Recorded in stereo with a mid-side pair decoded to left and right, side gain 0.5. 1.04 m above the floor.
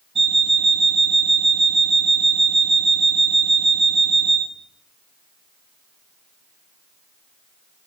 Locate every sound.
0.1 s an alarm clock: 40° right, 1.0 m